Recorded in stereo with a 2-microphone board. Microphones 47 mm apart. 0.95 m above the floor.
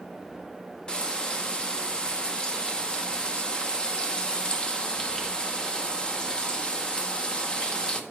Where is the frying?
15° left (ahead or behind), 0.6 m.